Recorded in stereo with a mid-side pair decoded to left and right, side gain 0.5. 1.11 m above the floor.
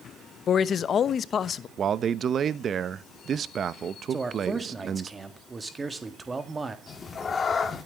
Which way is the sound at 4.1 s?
20° right.